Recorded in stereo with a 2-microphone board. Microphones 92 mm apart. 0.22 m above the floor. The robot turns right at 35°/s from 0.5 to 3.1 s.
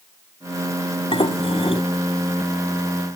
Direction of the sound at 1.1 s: 70° left (ahead or behind).